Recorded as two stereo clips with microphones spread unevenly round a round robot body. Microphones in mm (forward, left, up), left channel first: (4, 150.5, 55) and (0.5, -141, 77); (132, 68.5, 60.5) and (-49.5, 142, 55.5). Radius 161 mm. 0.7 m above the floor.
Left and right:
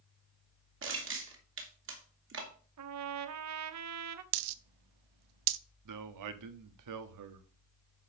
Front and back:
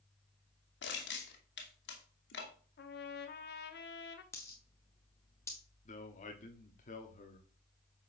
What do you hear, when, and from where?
0.8 s crushing: 45° right, 2.5 m
2.8 s a trumpet: 60° right, 0.8 m
4.3 s a dropped coin: 105° right, 0.6 m
5.8 s a man speaking: 80° right, 1.2 m